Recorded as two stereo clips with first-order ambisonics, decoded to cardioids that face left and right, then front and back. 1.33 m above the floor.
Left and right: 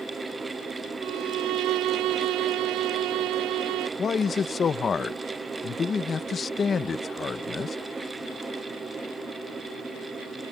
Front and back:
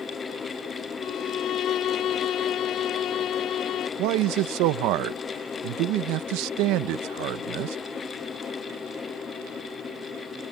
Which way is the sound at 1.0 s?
55° right.